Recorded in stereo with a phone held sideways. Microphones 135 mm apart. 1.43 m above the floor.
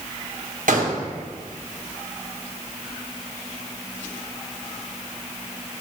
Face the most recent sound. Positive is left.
turn(degrees=-80)